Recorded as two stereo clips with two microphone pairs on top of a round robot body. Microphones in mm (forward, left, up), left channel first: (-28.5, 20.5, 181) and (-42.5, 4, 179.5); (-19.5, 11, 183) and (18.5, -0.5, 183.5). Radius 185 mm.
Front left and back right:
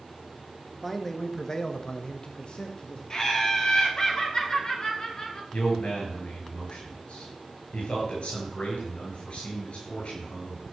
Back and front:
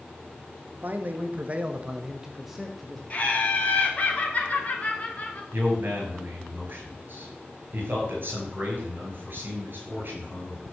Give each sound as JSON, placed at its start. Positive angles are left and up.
{"t": 0.8, "sound": "a man speaking", "azimuth_deg": -30, "distance_m": 1.5}
{"t": 3.1, "sound": "laughter", "azimuth_deg": 110, "distance_m": 3.0}
{"t": 5.5, "sound": "a man speaking", "azimuth_deg": 20, "distance_m": 5.5}